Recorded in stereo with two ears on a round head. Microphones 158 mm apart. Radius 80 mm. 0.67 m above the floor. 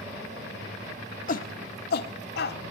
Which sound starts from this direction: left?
A shout, at 1.3 s.